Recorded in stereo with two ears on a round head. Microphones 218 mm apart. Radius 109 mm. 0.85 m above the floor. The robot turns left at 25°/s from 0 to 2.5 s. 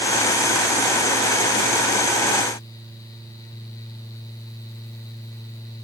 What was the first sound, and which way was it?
Only background noise.